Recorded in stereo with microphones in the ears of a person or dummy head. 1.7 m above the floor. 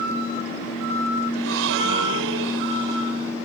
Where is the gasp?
70° right (ahead or behind).